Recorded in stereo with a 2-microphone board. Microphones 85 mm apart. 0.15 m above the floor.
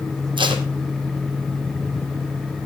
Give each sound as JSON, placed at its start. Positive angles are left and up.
{"t": 0.4, "sound": "tape being pulled", "side_deg": -70, "distance_m": 2.0}